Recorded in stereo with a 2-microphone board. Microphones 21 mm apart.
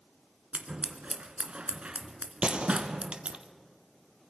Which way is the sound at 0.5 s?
60° right (ahead or behind).